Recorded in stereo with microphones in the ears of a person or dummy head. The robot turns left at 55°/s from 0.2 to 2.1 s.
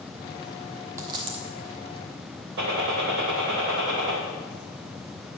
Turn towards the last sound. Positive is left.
turn(degrees=-65)  # may be behind; listen again after turning